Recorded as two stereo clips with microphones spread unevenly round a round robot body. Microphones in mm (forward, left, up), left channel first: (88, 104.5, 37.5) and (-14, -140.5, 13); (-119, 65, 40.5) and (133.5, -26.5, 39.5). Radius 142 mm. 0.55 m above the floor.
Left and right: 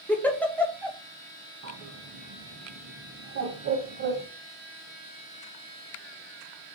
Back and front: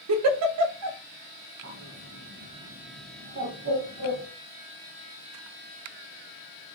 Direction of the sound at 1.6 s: 70° right.